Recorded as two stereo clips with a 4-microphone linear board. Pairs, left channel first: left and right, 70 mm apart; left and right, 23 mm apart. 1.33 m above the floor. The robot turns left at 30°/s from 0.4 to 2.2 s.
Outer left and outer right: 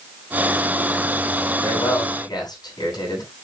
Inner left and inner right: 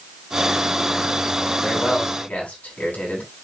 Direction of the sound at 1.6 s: 85° left.